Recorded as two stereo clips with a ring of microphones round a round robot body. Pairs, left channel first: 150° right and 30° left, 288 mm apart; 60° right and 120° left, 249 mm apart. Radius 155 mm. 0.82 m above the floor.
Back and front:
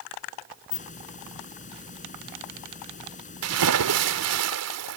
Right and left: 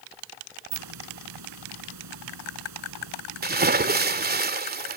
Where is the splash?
65° left.